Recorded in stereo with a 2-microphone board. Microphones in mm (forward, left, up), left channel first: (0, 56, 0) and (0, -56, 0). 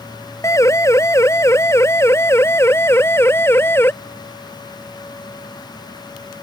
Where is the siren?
25° left (ahead or behind); by 3.9 s 20° left (ahead or behind).